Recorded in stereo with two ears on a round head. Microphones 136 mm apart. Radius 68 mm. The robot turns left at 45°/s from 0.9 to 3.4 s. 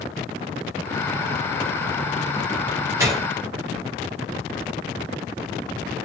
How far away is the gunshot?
About 0.7 m.